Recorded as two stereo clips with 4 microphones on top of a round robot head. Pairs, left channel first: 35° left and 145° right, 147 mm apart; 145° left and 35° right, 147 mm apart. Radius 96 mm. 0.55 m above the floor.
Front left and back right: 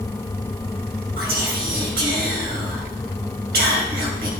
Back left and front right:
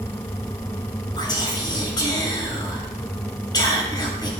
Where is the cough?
I don't hear a cough.